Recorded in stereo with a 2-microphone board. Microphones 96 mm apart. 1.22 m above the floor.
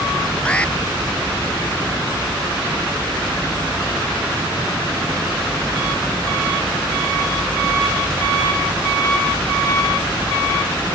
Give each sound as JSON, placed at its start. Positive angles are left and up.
{"t": 0.5, "sound": "an alarm", "side_deg": 10}